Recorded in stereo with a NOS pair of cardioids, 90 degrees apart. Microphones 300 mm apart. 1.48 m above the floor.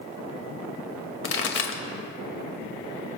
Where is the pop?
45° left, 2.5 m.